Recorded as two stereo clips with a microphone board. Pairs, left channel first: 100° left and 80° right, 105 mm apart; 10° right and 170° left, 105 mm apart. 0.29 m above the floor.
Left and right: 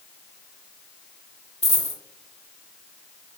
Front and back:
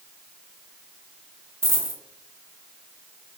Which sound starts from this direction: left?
A dropped coin, at 1.6 s.